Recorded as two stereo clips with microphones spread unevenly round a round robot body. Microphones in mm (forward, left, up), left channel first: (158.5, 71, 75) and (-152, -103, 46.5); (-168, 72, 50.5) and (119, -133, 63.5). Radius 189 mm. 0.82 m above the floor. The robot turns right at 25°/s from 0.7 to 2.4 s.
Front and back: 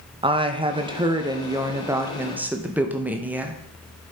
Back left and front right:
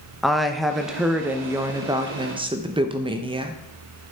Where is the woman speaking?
130° right, 0.8 m; by 3.6 s 90° right, 0.8 m.